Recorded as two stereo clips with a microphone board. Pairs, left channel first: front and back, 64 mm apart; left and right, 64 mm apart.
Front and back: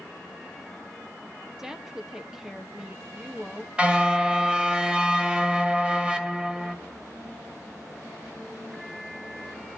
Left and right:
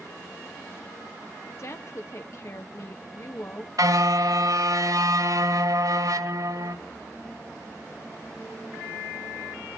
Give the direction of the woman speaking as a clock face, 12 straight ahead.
9 o'clock.